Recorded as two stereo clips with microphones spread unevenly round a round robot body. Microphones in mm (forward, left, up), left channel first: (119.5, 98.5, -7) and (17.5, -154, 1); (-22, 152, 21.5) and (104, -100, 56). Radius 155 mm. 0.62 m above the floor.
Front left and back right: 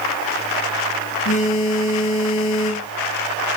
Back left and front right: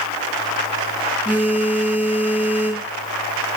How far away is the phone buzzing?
About 6 m.